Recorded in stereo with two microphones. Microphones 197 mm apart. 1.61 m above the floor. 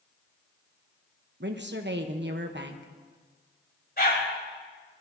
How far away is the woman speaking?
About 1.1 m.